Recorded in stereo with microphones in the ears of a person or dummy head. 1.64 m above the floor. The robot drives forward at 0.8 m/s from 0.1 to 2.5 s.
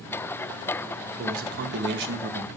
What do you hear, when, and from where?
1.2 s a man speaking: 50° right (ahead or behind), 1.8 m; by 2.5 s 70° right (ahead or behind), 1.5 m